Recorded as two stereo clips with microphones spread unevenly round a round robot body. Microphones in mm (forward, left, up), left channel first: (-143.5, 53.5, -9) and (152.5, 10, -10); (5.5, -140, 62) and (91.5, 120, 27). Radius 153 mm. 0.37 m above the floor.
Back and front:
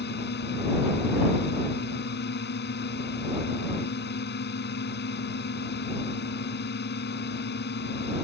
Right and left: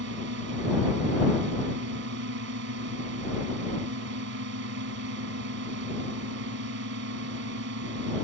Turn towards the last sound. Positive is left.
turn(degrees=120)